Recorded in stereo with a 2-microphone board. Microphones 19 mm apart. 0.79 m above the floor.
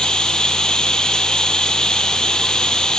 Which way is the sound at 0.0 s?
45° left (ahead or behind).